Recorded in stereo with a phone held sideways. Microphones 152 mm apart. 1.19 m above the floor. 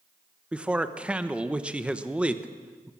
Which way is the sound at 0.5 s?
5° right (ahead or behind).